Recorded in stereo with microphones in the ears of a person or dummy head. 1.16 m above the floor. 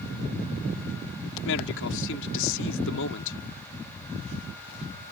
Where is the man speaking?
75° left (ahead or behind).